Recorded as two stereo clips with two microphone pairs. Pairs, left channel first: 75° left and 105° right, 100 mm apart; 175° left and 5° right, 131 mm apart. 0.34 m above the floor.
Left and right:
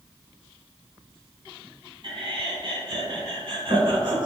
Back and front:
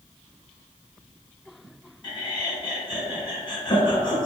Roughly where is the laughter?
Behind right.